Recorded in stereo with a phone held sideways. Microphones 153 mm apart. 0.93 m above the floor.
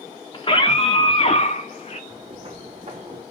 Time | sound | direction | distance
0.3 | a scream | 35° left (ahead or behind) | 2 m
2.1 | footsteps | 40° right (ahead or behind) | 3 m